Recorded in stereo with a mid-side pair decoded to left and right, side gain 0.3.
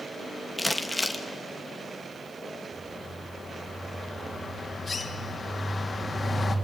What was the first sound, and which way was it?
Crumpling, 10° left.